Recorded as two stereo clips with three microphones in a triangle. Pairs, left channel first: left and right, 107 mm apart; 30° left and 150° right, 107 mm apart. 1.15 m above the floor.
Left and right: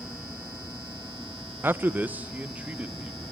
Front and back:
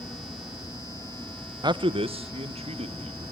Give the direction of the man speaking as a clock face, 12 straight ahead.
5 o'clock.